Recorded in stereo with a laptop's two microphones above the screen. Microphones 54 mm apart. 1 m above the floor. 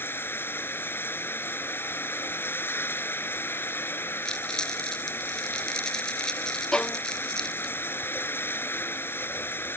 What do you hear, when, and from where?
0.0 s running water: 45° left (ahead or behind)
4.2 s crumpling: 15° left (ahead or behind)
6.7 s a violin: 20° left (ahead or behind)